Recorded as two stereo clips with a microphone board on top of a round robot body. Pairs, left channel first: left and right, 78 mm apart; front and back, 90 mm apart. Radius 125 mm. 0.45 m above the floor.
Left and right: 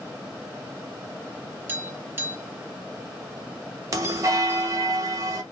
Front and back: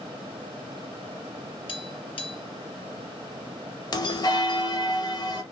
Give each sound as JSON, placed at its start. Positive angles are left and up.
{"t": 1.7, "sound": "tapping", "azimuth_deg": -25, "distance_m": 1.0}
{"t": 3.9, "sound": "a bell", "azimuth_deg": -40, "distance_m": 0.7}